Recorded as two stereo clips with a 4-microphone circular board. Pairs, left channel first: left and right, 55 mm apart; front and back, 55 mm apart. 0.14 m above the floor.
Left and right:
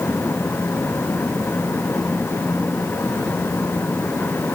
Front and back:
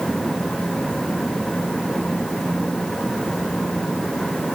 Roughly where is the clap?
No clap in this recording.